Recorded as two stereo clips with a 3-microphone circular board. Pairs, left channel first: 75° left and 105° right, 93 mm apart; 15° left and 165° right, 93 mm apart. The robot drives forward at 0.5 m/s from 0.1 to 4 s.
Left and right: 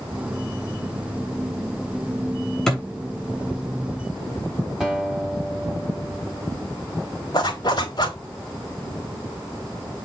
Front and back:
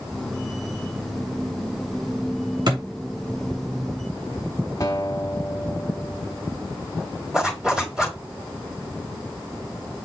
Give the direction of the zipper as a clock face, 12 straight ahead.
8 o'clock.